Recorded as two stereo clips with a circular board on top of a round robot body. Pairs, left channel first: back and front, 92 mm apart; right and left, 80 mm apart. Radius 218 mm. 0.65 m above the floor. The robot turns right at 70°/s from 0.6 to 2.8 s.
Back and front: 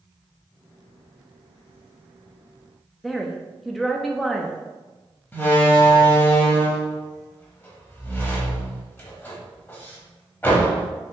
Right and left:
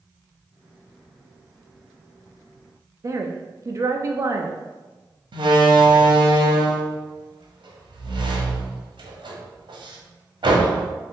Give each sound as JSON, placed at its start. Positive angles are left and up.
{"t": 3.0, "sound": "a woman speaking", "azimuth_deg": 90, "distance_m": 0.7}
{"t": 5.3, "sound": "a door slam", "azimuth_deg": 115, "distance_m": 1.0}